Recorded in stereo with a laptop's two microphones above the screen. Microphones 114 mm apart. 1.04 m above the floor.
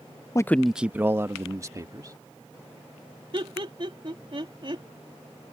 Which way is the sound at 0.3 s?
30° left (ahead or behind).